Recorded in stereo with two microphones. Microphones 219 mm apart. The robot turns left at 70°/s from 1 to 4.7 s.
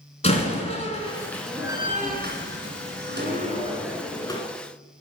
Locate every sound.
0.2 s a door slam: 30° left (ahead or behind), 1.9 m; by 4.4 s 25° left (ahead or behind), 1.9 m